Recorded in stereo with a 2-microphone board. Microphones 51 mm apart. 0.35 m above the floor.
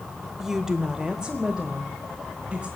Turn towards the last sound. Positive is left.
turn(degrees=-15)  # may be behind; listen again after turning